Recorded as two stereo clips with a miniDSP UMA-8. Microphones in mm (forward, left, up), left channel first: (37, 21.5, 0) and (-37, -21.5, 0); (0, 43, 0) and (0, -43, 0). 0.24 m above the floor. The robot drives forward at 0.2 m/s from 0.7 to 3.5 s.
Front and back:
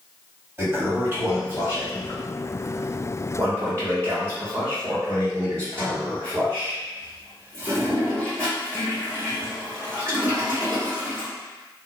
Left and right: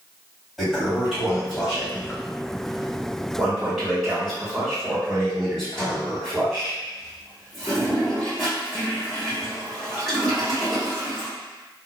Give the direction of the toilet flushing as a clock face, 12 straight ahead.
6 o'clock.